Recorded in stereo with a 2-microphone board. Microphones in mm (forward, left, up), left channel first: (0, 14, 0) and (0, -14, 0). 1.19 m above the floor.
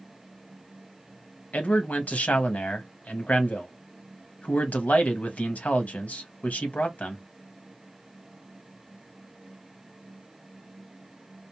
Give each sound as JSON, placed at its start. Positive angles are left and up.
{"t": 1.5, "sound": "a man speaking", "side_deg": 60, "distance_m": 1.0}